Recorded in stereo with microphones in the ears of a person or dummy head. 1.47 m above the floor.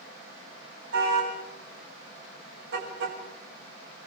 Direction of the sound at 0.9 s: 85° right.